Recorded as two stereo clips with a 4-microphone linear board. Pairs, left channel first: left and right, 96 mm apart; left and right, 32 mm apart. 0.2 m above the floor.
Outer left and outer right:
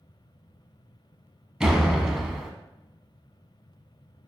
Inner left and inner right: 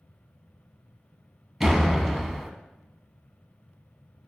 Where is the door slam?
5° right (ahead or behind), 0.9 m.